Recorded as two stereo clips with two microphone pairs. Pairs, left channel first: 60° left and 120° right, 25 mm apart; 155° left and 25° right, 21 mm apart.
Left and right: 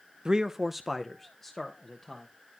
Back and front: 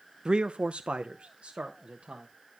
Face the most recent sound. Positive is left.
turn(degrees=-10)